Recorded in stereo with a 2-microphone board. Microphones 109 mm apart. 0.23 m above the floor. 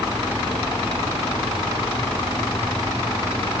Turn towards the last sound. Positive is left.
No sound to turn to.